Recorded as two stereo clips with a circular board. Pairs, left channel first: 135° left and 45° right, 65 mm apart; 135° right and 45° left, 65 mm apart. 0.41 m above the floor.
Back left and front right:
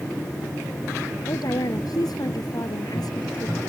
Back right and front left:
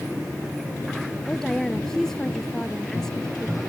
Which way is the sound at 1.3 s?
145° left.